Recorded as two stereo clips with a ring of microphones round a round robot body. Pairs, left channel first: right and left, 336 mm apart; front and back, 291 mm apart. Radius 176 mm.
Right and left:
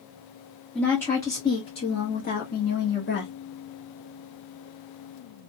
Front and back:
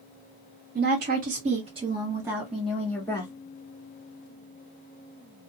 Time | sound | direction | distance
0.8 | a woman speaking | 175° right | 1.4 m